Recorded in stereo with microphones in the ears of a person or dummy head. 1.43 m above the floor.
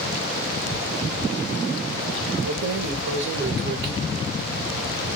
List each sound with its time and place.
2.5 s keys jangling: 45° right (ahead or behind), 0.8 m; by 3.9 s 60° right (ahead or behind), 1.2 m